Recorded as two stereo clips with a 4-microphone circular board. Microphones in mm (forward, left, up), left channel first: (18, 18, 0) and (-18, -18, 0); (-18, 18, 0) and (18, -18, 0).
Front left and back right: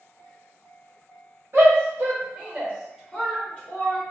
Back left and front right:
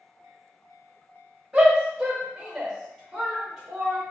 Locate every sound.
1.5 s a shout: 120° right, 1.5 m; by 4.0 s 55° left, 1.1 m